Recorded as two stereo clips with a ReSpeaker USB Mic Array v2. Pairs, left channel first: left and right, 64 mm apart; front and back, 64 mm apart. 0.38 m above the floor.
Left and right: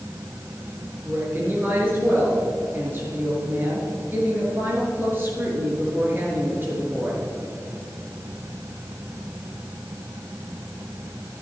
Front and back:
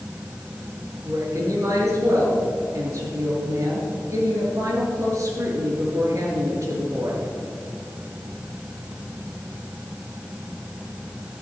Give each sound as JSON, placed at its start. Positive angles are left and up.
{"t": 1.1, "sound": "a woman speaking", "azimuth_deg": -145, "distance_m": 5.5}